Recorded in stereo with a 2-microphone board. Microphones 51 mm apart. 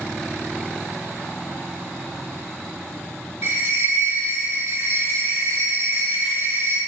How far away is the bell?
About 0.8 m.